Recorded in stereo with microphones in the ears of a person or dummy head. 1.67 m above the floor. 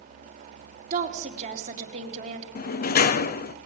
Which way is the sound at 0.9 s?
40° right (ahead or behind).